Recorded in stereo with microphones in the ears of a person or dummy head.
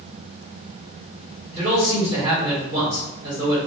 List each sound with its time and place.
1.5 s a man speaking: 30° right (ahead or behind), 1.6 m